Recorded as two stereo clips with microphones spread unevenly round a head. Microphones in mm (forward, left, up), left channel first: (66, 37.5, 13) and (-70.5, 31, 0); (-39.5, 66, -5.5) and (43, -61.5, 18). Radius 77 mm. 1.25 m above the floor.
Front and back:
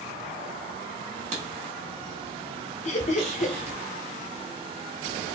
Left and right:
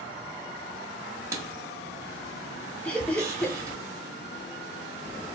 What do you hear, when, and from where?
1.3 s writing: 125° right, 1.4 m
2.9 s laughter: 40° left, 0.6 m